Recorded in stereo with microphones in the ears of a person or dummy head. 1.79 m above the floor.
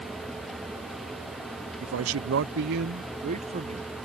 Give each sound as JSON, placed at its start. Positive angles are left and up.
{"t": 1.8, "sound": "a man speaking", "side_deg": -80}